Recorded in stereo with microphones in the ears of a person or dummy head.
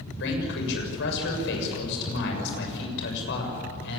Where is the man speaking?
65° left (ahead or behind), 7 m.